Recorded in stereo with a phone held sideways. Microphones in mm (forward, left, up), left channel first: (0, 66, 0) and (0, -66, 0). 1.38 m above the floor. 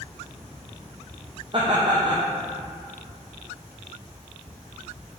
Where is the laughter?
40° right (ahead or behind), 0.9 m.